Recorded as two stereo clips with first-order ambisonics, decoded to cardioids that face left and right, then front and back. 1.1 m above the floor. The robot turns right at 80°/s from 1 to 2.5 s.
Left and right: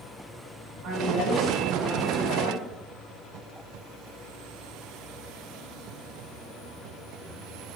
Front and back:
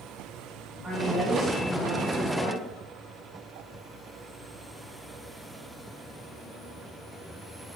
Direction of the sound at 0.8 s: 90° right.